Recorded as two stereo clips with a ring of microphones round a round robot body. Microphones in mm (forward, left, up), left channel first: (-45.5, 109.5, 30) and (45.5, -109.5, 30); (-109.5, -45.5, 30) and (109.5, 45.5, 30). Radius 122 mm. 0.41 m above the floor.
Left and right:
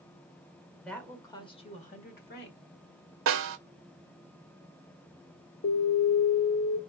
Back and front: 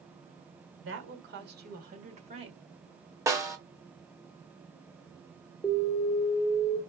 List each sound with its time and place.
0.8 s a woman speaking: 25° left, 1.4 m; by 2.6 s 90° left, 1.5 m
3.3 s a snare drum: 50° right, 1.0 m
5.6 s an alarm: 115° left, 1.2 m